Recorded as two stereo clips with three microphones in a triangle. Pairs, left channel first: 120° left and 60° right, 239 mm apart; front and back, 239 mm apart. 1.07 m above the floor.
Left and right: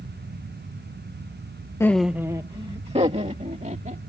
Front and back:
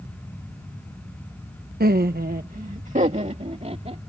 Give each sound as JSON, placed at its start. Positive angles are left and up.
{"t": 1.8, "sound": "laughter", "azimuth_deg": -170}